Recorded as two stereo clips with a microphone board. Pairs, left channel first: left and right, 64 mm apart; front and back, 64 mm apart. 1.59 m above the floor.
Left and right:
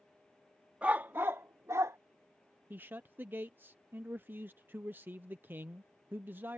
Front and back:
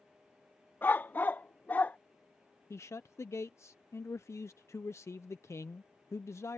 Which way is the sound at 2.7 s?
35° right.